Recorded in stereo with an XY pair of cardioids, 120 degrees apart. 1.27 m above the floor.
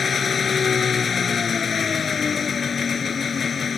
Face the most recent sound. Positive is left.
turn(degrees=35)